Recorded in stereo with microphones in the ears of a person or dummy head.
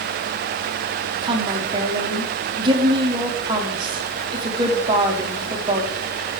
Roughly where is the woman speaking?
Right.